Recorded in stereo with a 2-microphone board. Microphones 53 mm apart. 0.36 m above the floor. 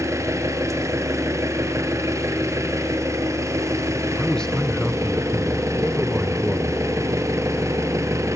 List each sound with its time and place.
0.0 s an engine running: 65° right (ahead or behind), 3 m
4.2 s a man speaking: 10° left (ahead or behind), 1.4 m